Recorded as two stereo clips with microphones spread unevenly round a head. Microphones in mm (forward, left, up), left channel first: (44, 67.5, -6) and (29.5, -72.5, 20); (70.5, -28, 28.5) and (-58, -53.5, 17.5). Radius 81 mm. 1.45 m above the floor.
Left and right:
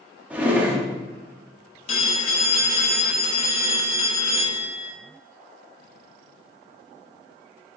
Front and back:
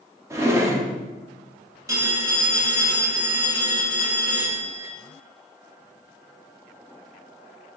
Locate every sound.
0.3 s a drawer: 120° right, 0.7 m
1.9 s a phone ringing: 125° left, 0.9 m